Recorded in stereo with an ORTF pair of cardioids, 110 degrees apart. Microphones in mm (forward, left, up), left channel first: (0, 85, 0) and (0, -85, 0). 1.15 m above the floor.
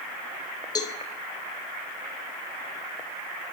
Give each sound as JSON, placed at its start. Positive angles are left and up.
{"t": 0.8, "sound": "a cowbell", "azimuth_deg": 25, "distance_m": 0.8}